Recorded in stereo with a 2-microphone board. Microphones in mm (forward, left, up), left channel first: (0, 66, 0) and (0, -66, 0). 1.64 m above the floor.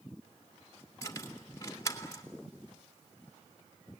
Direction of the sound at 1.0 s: 25° left (ahead or behind).